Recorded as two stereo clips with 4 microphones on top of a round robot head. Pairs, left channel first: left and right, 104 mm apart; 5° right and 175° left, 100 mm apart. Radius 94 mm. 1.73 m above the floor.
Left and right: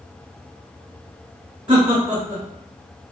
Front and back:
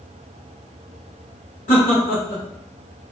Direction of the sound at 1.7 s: 35° right.